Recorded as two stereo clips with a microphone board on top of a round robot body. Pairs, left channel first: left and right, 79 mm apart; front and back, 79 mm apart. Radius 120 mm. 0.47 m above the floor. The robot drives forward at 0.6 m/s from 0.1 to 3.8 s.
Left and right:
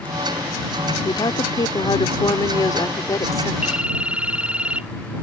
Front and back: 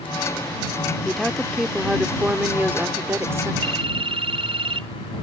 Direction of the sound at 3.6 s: 170° right.